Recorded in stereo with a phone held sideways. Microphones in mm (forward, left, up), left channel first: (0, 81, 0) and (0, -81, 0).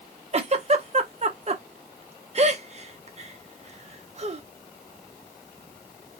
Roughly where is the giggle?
Right.